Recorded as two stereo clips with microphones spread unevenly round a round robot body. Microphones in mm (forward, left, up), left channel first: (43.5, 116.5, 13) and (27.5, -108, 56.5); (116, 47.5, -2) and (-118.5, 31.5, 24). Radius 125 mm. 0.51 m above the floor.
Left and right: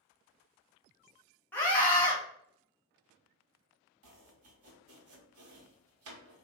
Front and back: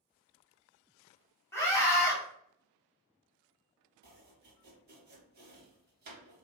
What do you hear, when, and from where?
1.5 s a scream: 50° left, 1.2 m
4.0 s chopping: 125° right, 0.8 m